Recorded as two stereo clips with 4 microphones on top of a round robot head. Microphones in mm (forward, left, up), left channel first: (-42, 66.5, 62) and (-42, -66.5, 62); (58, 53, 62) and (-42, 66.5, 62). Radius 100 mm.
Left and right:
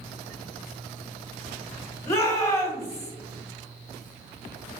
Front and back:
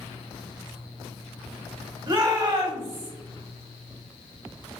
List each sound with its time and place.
2.1 s a shout: 155° left, 1.6 m